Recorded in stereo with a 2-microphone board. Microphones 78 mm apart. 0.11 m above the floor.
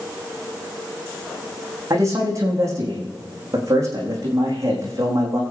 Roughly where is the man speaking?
Right.